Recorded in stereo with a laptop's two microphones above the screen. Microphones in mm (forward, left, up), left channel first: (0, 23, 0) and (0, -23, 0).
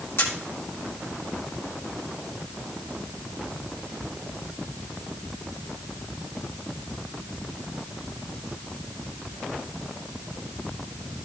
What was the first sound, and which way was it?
A camera shutter, 70° left (ahead or behind).